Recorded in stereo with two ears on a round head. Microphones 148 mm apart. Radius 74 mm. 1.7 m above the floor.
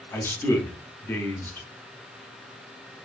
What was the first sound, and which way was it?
A man speaking, 15° left (ahead or behind).